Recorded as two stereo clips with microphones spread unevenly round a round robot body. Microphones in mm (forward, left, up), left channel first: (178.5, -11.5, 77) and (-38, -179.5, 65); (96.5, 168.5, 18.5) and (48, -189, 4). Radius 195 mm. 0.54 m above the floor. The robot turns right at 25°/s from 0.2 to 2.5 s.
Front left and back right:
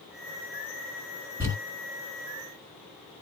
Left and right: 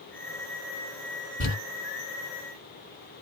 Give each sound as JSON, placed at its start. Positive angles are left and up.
{"t": 1.4, "sound": "crumpling", "azimuth_deg": 145, "distance_m": 1.8}